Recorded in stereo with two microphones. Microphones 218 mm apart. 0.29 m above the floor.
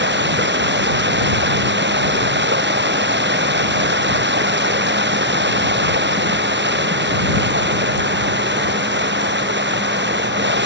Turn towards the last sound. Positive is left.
turn(degrees=-60)  # may be behind; listen again after turning